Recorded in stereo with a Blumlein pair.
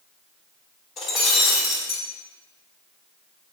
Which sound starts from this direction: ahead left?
Breaking glass, at 1.0 s.